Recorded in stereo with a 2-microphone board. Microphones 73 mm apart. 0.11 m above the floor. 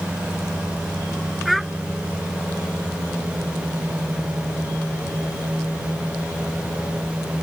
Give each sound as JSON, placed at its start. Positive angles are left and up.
{"t": 1.4, "sound": "a child speaking", "side_deg": 0}